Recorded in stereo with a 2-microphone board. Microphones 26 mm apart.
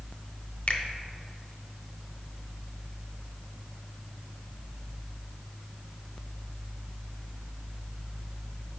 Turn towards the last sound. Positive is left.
turn(degrees=50)  # may be behind; listen again after turning